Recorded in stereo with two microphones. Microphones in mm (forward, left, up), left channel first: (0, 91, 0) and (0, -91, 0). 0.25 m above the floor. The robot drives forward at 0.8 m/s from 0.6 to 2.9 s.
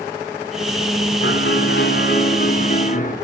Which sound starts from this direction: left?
A piano, at 1.2 s.